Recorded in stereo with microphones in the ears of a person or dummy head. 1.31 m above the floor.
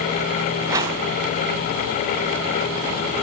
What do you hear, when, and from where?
0.7 s a whoosh: 25° right (ahead or behind), 3 m